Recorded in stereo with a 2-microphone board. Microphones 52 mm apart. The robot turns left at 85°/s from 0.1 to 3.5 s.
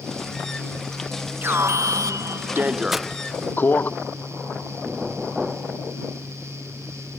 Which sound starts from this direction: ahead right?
An alarm, at 1.4 s.